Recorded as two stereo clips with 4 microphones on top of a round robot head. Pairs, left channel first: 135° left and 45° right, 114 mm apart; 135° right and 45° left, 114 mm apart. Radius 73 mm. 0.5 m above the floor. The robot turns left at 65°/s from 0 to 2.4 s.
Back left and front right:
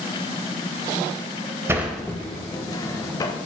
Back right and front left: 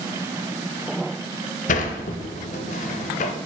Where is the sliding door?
115° right, 0.6 m; by 3.3 s 160° right, 0.6 m.